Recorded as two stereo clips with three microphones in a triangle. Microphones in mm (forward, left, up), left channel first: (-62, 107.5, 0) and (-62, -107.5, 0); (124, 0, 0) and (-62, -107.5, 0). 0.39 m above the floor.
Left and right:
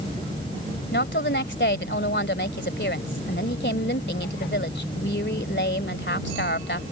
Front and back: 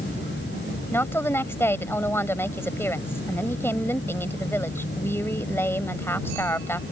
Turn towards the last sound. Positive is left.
turn(degrees=105)